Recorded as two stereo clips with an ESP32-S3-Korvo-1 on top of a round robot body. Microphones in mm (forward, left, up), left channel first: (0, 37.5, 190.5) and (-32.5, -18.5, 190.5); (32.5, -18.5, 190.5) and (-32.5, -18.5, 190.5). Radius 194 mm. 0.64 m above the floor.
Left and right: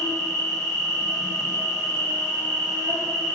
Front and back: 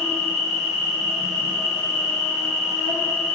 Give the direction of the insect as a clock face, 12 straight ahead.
3 o'clock.